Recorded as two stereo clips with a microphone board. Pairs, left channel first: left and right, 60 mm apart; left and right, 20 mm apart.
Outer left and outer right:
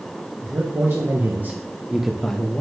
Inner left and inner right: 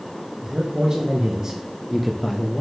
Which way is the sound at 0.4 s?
40° right (ahead or behind).